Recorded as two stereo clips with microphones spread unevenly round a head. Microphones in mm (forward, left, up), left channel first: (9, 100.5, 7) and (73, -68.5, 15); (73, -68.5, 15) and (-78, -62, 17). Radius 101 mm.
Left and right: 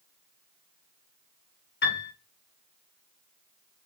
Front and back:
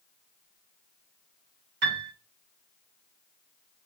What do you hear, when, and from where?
1.8 s a piano: 150° left, 2.5 m